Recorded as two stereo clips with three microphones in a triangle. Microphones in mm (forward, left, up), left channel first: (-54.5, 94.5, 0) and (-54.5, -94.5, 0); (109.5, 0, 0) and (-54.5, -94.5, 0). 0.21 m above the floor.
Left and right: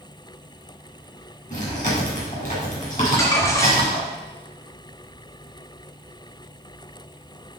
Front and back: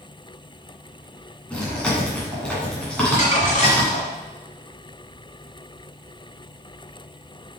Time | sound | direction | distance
1.5 | chewing | 115° left | 2.5 m
3.0 | crumpling | 25° left | 1.4 m